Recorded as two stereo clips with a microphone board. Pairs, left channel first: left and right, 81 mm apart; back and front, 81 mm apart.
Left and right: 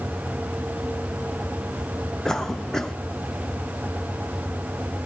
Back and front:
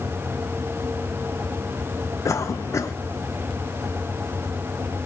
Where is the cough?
170° left, 1.1 m.